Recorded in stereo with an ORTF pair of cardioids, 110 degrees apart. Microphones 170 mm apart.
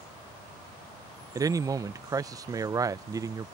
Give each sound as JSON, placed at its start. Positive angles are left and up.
{"t": 1.4, "sound": "a man speaking", "azimuth_deg": -20}